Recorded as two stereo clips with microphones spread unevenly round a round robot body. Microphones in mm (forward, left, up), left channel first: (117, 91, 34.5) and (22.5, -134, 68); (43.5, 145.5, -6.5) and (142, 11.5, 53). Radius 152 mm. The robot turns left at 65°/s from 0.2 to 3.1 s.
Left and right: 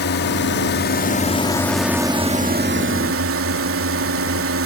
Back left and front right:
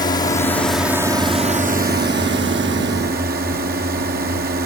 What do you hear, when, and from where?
0.0 s a drone: 85° left; by 4.7 s 100° right